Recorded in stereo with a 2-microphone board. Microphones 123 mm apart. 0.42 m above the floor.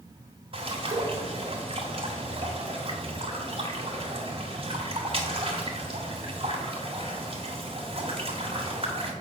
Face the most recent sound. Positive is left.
turn(degrees=-45)  # may be behind; listen again after turning